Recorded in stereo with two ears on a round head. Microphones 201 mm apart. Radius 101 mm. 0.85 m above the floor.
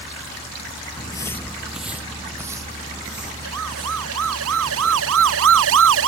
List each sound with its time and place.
0.9 s footsteps: 25° left (ahead or behind); by 4.3 s 25° right (ahead or behind)
3.4 s a siren: 75° right (ahead or behind); by 6.1 s 65° right (ahead or behind)